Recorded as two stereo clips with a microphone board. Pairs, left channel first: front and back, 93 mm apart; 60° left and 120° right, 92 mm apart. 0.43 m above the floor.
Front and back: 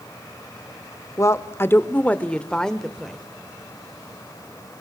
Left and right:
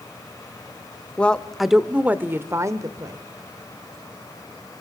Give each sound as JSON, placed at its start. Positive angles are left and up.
{"t": 1.2, "sound": "a woman speaking", "azimuth_deg": -5, "distance_m": 1.0}